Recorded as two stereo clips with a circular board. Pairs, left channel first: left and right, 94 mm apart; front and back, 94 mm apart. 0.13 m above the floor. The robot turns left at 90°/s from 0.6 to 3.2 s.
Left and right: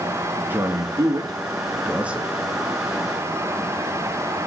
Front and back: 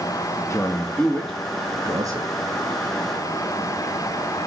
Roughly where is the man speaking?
Ahead right.